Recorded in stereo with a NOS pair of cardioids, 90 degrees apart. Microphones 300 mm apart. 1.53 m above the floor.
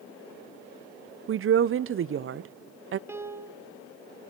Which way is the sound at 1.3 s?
45° right.